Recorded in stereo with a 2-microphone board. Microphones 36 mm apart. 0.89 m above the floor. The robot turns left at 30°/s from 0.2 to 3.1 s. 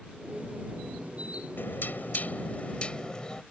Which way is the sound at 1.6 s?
70° left.